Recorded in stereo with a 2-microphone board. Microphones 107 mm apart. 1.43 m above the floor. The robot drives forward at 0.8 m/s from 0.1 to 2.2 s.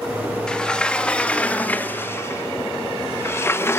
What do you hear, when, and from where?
0.5 s a sliding door: 10° left (ahead or behind), 2.0 m; by 3.8 s 20° left (ahead or behind), 0.7 m